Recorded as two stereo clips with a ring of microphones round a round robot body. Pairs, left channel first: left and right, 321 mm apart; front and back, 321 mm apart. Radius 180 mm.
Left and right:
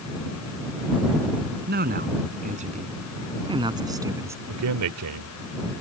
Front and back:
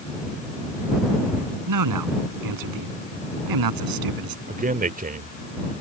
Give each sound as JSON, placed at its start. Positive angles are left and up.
{"t": 1.7, "sound": "a man speaking", "azimuth_deg": -155}
{"t": 4.5, "sound": "a man speaking", "azimuth_deg": -120}